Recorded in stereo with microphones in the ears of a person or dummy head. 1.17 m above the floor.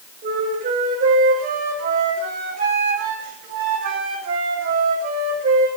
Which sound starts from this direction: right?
A flute, at 0.2 s.